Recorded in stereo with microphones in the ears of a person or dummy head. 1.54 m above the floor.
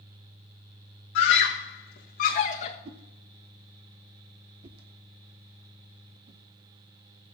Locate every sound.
1.1 s a scream: 60° left (ahead or behind), 1.6 m; by 2.8 s 30° left (ahead or behind), 1.6 m
2.9 s a whoosh: 30° right (ahead or behind), 0.7 m